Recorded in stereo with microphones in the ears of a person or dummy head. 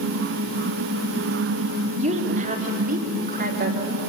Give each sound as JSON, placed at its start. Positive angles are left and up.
{"t": 2.0, "sound": "a woman speaking", "side_deg": -35, "distance_m": 3.0}